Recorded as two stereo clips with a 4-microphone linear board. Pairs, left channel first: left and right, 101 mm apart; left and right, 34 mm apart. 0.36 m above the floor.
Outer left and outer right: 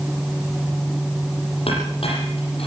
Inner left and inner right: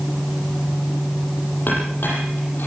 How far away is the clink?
About 8 m.